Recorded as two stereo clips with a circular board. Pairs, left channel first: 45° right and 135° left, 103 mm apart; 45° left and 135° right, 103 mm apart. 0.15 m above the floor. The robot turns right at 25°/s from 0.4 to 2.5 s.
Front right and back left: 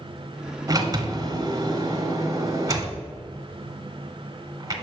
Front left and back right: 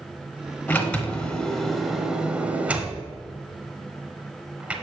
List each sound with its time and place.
0.7 s a sliding door: 110° left, 1.0 m; by 4.7 s 155° left, 1.0 m